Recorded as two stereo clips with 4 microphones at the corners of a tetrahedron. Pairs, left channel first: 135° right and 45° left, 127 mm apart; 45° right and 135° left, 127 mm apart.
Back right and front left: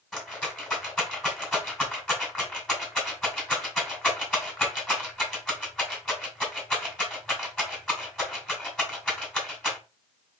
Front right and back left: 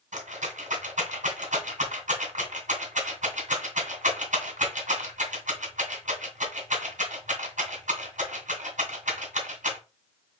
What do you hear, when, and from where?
0.1 s a rattle: 140° left, 1.8 m